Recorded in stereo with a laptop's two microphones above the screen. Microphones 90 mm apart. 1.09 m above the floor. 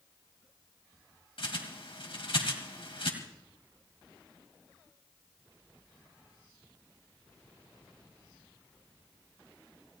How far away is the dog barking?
No dog barking in this recording.